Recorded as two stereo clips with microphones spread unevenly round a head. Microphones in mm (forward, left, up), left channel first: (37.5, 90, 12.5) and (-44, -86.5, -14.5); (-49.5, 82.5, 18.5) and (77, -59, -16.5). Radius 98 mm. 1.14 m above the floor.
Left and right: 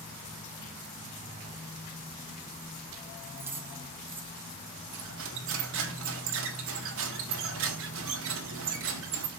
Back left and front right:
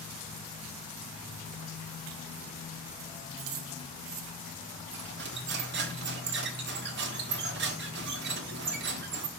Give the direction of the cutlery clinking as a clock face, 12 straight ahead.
3 o'clock.